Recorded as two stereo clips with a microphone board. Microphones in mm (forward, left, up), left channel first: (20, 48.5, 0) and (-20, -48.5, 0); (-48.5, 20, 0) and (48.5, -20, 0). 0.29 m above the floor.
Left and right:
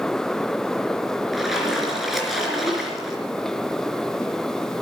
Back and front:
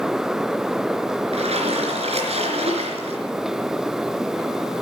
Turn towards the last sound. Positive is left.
turn(degrees=-25)